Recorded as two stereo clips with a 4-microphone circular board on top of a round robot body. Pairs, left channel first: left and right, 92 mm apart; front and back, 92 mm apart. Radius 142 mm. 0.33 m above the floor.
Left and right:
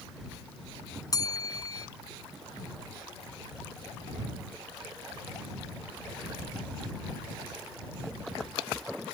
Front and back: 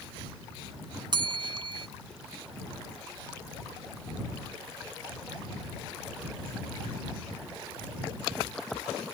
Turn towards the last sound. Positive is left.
turn(degrees=140)